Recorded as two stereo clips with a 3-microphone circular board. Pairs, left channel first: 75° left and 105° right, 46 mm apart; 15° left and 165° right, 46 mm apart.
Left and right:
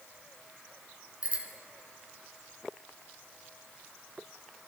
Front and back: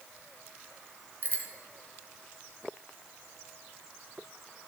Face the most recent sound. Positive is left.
turn(degrees=-45)